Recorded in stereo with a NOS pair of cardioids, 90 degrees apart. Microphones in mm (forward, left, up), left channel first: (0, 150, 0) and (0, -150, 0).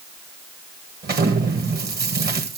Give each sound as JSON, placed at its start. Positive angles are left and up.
{"t": 1.0, "sound": "an explosion", "azimuth_deg": -35, "distance_m": 2.0}